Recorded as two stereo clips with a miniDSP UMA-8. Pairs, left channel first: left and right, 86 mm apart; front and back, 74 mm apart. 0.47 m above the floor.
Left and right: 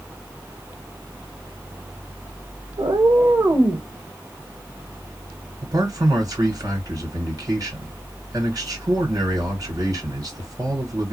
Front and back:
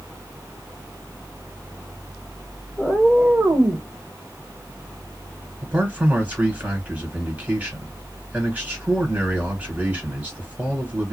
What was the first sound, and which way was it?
A cat meowing, 80° right.